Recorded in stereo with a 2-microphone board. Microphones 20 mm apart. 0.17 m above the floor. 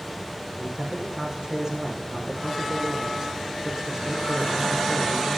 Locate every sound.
0.6 s a man speaking: 30° right (ahead or behind), 6.5 m